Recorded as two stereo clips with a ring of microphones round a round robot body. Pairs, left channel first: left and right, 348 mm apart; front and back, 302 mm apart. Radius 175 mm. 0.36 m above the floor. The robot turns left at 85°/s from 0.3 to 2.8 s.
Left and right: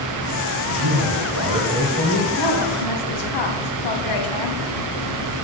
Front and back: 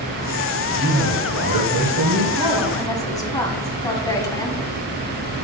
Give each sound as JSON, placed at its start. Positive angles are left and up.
{"t": 0.7, "sound": "a man speaking", "azimuth_deg": -80, "distance_m": 1.5}
{"t": 2.4, "sound": "a woman speaking", "azimuth_deg": 115, "distance_m": 2.5}